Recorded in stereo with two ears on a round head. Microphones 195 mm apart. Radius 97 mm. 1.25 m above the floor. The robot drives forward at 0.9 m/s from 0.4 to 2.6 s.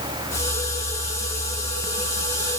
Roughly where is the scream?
I don't hear a scream.